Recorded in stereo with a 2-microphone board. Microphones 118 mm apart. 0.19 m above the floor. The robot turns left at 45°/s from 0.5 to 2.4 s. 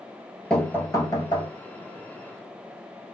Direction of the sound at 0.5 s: 175° left.